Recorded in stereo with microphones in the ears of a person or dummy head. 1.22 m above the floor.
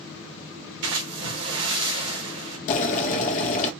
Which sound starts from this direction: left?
Boiling, at 2.7 s.